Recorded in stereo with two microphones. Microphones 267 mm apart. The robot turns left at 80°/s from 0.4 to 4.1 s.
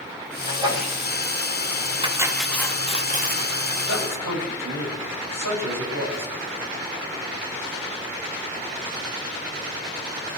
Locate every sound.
0.4 s a sneeze: 145° right, 8 m; by 0.9 s 170° left, 8 m
2.0 s cutlery clinking: 145° right, 1.0 m; by 3.5 s 95° left, 1.0 m
3.9 s a man speaking: 60° right (ahead or behind), 7.5 m; by 6.3 s 75° right (ahead or behind), 7.5 m